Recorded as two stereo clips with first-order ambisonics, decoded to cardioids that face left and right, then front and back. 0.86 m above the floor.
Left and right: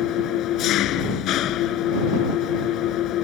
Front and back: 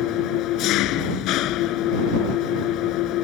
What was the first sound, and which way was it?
An engine running, 40° left.